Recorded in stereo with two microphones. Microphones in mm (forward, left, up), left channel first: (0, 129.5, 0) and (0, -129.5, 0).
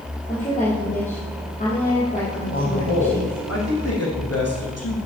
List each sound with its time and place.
0.3 s a woman speaking: 30° left (ahead or behind), 3.5 m
2.5 s a man speaking: 70° left (ahead or behind), 5 m